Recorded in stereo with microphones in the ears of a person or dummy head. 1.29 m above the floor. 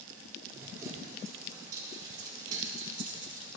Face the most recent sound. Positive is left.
turn(degrees=-25)  # may be behind; listen again after turning